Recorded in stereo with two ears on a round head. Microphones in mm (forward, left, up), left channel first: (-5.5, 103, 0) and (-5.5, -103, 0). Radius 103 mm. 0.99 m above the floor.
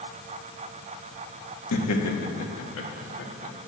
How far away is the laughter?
About 1.5 m.